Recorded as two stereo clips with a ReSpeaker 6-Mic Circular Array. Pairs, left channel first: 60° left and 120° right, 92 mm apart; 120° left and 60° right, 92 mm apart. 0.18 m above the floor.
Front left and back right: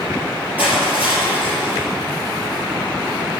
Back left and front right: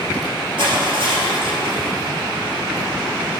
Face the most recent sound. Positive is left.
turn(degrees=-50)